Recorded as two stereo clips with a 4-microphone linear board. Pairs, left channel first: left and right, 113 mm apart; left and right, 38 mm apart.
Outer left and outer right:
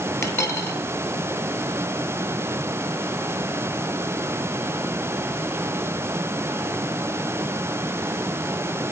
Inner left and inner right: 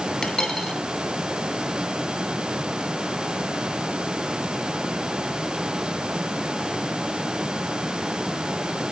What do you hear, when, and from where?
0.2 s a dropped coin: 25° left (ahead or behind), 1.9 m